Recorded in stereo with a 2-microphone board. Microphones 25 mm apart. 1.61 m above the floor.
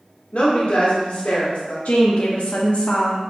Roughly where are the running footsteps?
No running footsteps in this recording.